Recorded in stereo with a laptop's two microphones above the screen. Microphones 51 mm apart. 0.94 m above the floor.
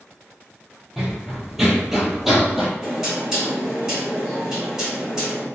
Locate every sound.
1.0 s running footsteps: 5° right (ahead or behind), 1.0 m
2.8 s knocking: 15° right (ahead or behind), 1.6 m